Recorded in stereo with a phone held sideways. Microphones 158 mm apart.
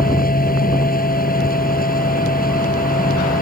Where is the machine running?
70° left (ahead or behind).